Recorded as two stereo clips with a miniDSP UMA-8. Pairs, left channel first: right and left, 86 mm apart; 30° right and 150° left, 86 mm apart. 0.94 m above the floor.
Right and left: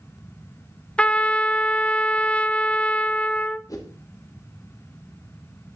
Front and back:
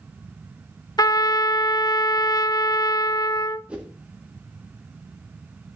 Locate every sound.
1.0 s a trumpet: 20° right, 0.7 m
3.7 s a whoosh: 135° right, 2 m